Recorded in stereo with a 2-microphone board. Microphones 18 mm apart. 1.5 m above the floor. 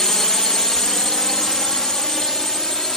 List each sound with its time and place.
0.0 s a drone: 35° left (ahead or behind)